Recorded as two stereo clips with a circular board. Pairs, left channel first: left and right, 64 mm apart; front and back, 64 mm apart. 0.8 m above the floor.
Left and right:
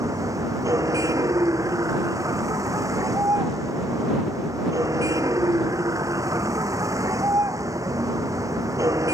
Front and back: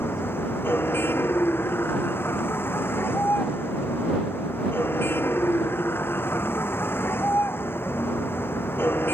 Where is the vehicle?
55° right.